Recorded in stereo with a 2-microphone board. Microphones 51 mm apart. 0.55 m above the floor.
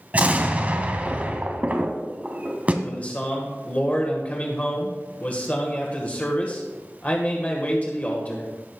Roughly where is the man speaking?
Left.